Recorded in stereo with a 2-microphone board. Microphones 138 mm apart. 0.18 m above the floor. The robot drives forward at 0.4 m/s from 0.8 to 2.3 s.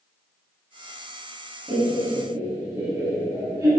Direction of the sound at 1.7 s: 30° right (ahead or behind).